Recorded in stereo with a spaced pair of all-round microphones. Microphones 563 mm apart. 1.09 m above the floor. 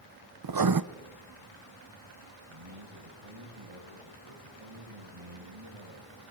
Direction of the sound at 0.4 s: 40° right (ahead or behind).